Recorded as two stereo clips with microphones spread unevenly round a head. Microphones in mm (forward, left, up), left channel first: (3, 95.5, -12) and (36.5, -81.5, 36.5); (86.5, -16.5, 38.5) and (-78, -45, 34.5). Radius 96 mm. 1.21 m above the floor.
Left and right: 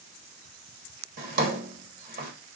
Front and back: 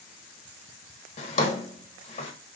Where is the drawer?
40° right, 1.4 m.